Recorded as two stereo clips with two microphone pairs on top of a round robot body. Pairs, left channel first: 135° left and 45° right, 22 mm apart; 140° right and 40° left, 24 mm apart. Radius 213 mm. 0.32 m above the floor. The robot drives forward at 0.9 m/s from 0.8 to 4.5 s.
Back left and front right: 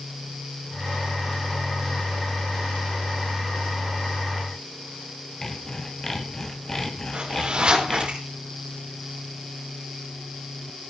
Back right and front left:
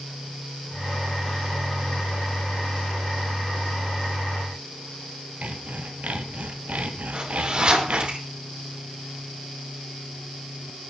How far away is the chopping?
I don't hear chopping.